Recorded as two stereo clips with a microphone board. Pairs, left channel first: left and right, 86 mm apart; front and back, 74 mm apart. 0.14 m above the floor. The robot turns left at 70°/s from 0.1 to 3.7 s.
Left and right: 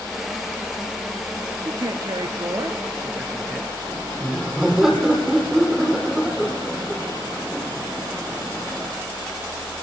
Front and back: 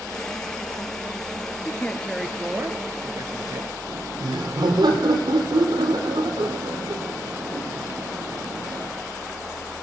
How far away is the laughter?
About 4 m.